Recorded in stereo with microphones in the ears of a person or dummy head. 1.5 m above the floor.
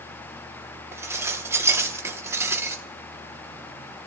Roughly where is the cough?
I don't hear a cough.